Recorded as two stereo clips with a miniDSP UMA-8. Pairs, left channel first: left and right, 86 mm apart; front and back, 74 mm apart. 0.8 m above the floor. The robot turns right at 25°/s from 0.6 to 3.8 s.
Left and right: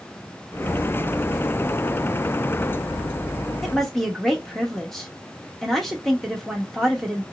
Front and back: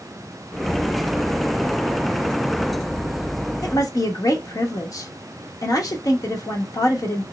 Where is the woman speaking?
Straight ahead, 0.9 m; by 7.2 s 5° left, 0.9 m.